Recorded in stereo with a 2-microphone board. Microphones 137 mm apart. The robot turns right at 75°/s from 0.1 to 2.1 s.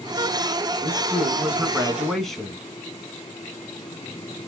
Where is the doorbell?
No doorbell in this recording.